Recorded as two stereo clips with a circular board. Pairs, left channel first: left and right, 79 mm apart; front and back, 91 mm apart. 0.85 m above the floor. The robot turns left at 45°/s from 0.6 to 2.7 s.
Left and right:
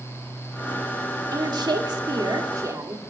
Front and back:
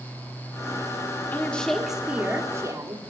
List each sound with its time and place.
1.3 s a woman speaking: 70° right, 2.5 m; by 3.0 s 130° right, 2.5 m